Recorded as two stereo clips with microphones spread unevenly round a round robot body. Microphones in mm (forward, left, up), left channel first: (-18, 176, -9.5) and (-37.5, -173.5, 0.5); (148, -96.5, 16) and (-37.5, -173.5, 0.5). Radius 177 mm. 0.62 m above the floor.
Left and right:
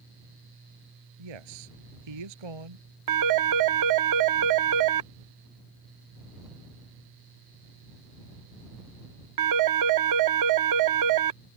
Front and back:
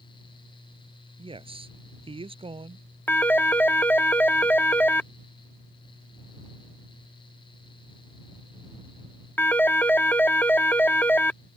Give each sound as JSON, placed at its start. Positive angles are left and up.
{"t": 1.2, "sound": "a man speaking", "azimuth_deg": -95}
{"t": 3.1, "sound": "a phone ringing", "azimuth_deg": -60}